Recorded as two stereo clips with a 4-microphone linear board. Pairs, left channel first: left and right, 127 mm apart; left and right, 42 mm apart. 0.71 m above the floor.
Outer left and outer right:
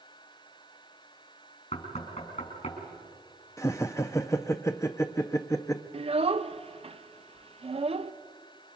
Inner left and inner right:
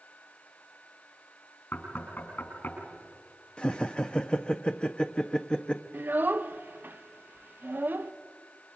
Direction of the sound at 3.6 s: 25° left (ahead or behind).